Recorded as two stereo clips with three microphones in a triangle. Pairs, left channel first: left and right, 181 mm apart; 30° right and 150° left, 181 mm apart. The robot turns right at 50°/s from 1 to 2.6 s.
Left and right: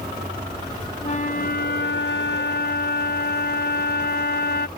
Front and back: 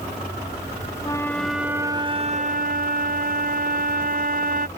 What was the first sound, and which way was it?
A flute, 35° left.